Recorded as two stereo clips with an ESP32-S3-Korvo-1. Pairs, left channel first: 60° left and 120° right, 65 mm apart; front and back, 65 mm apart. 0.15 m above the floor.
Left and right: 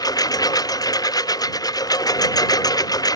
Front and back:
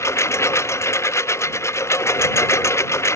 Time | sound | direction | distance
0.0 | a lawn mower | 45° left | ?